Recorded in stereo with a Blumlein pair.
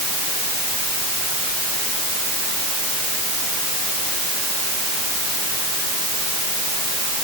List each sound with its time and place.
Only background noise.